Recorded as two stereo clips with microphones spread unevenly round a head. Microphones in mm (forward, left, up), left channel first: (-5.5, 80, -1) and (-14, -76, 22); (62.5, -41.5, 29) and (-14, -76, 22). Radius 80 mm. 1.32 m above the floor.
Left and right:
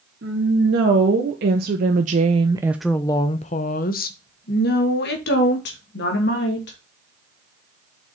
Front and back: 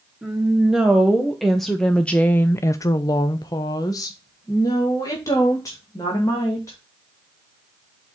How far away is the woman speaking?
About 1.7 m.